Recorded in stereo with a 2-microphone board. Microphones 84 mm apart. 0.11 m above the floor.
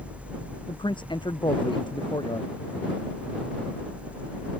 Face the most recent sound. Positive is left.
turn(degrees=65)  # may be behind; listen again after turning